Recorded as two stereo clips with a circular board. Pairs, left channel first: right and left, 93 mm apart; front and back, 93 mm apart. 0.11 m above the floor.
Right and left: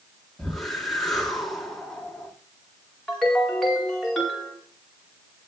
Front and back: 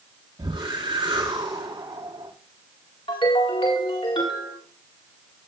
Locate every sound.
0.4 s a whoosh: straight behind, 2.5 m
3.1 s a ringtone: 5° right, 4.5 m